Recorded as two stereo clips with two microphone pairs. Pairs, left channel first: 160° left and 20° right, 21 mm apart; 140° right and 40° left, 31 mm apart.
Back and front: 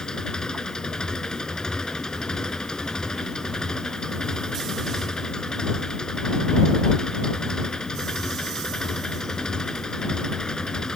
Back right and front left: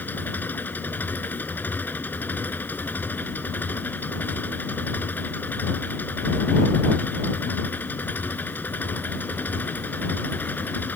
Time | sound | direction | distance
0.0 | an engine running | 150° right | ?